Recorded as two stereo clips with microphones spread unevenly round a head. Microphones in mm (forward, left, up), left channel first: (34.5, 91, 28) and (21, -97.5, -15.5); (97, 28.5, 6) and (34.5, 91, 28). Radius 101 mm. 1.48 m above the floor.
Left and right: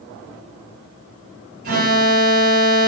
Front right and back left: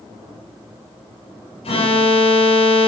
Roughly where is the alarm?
Ahead right.